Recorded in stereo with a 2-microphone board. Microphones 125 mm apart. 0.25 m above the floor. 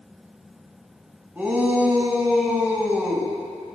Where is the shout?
10° right (ahead or behind), 1.9 m.